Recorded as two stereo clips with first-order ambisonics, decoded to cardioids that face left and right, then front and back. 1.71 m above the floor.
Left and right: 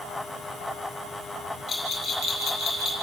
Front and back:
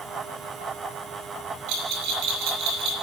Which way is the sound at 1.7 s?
160° left.